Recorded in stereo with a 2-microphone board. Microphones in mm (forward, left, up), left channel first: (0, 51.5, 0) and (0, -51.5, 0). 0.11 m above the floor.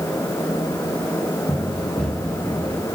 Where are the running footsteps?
Centre (ahead or behind), 9 m; by 2.9 s 15° left (ahead or behind), 8.5 m.